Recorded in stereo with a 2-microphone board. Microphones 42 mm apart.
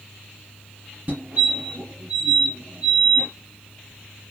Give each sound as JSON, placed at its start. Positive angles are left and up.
{"t": 1.1, "sound": "a fire alarm", "side_deg": -45, "distance_m": 4.5}